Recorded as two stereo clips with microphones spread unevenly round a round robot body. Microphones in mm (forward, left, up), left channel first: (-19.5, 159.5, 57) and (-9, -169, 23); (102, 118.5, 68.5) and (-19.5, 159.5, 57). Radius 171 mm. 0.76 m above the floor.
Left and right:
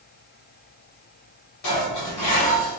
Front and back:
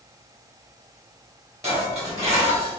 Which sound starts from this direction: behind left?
Dishes clattering, at 1.6 s.